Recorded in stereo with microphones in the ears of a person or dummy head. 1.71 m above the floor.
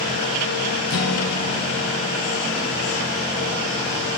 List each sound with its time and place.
0.9 s a guitar: 80° left, 0.8 m